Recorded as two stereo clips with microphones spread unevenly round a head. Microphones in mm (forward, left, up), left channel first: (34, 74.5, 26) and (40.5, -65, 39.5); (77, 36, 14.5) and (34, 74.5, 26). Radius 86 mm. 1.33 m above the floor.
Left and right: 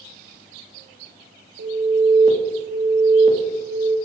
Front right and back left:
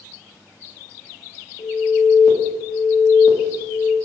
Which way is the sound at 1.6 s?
60° right.